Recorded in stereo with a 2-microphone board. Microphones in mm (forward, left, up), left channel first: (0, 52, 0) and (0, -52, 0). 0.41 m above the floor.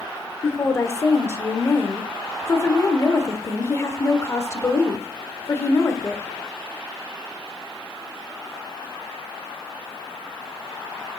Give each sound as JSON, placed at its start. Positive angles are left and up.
{"t": 0.4, "sound": "a woman speaking", "side_deg": 25, "distance_m": 1.3}